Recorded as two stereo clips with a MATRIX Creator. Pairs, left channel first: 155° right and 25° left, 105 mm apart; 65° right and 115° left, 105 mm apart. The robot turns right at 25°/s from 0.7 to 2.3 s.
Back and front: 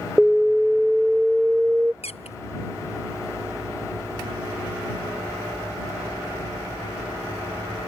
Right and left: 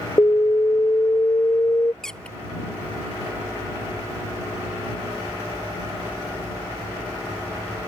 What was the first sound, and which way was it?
An alarm, 70° right.